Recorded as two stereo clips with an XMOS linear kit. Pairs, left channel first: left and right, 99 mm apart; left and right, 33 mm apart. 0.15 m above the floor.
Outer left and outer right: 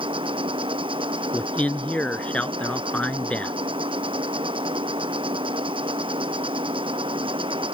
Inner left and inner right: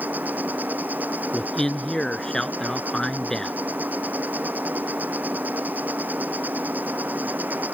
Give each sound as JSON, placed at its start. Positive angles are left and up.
{"t": 0.0, "sound": "an insect", "side_deg": -60}
{"t": 1.3, "sound": "a man speaking", "side_deg": 15}